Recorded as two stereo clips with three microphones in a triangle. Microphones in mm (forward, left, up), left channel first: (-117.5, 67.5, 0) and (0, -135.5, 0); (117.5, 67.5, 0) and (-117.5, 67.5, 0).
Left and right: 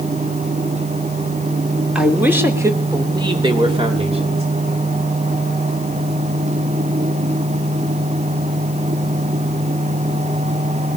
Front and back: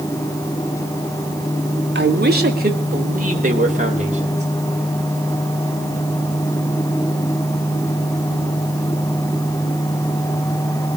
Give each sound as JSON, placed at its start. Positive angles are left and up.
{"t": 1.9, "sound": "a man speaking", "azimuth_deg": -145, "distance_m": 2.5}